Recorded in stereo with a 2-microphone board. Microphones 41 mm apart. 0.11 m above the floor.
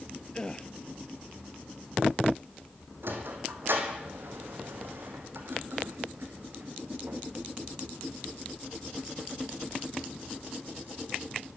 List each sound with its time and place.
0.3 s a gasp: 20° left (ahead or behind), 1.0 m
3.0 s a sliding door: 60° right (ahead or behind), 3.5 m